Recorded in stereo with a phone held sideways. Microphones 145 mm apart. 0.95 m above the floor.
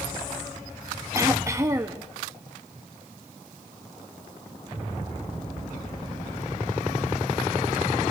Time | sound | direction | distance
1.1 | throat clearing | 20° right (ahead or behind) | 1.4 m